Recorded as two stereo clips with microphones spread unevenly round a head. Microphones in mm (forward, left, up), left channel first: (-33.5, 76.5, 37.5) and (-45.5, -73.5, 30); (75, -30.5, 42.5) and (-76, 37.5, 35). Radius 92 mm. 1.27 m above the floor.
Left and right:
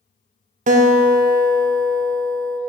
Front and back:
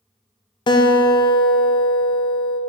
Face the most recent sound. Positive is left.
turn(degrees=-85)